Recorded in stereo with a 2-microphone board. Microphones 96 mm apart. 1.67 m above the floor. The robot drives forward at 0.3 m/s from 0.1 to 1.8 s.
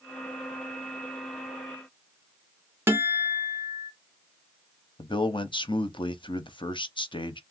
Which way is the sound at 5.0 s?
60° left (ahead or behind).